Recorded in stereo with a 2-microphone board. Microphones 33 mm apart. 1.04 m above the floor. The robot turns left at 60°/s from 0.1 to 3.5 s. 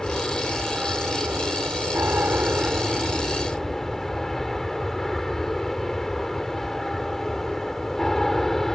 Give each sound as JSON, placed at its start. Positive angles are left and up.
{"t": 0.0, "sound": "an aircraft", "azimuth_deg": 15}